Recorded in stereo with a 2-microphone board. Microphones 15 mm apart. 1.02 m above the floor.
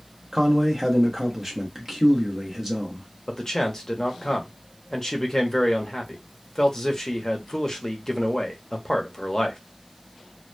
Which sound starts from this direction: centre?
A man speaking, at 0.3 s.